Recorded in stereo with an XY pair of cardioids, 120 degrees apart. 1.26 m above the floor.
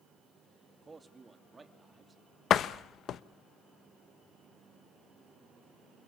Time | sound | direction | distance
0.8 | a man speaking | 15° right | 2.5 m
2.5 | a door slam | 55° left | 0.9 m